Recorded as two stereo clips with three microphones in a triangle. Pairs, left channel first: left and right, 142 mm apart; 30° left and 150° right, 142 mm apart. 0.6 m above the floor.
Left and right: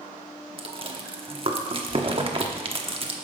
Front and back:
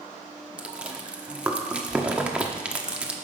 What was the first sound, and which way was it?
Chewing, 70° right.